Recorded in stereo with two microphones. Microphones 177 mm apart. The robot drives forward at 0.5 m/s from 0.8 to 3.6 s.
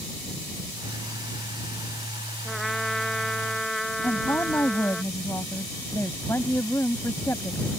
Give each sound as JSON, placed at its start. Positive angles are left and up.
{"t": 2.5, "sound": "a trumpet", "side_deg": 0}
{"t": 4.0, "sound": "a woman speaking", "side_deg": 15}